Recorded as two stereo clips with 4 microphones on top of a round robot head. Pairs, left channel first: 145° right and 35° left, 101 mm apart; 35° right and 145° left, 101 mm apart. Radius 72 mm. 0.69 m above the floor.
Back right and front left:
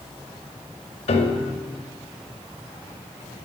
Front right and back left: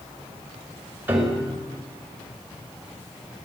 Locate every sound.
1.1 s a piano: 140° right, 2.0 m